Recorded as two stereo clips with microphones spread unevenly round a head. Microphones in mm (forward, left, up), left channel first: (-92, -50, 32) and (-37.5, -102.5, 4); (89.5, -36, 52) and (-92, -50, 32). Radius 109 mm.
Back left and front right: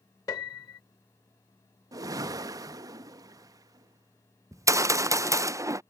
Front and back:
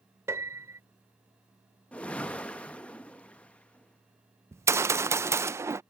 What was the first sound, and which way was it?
A piano, 105° left.